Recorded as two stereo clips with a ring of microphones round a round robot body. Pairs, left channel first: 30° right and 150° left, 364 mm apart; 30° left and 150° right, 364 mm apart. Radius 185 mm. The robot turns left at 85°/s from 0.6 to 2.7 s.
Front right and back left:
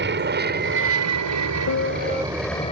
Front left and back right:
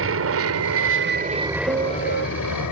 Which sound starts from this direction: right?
A piano, at 1.7 s.